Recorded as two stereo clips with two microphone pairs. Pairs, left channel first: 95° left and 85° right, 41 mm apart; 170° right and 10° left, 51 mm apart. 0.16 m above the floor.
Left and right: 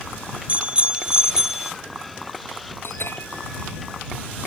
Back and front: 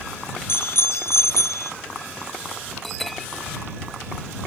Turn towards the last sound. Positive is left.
turn(degrees=105)